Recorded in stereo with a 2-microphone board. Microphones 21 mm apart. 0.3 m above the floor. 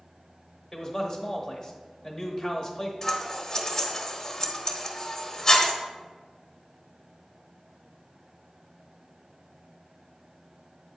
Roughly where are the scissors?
Centre.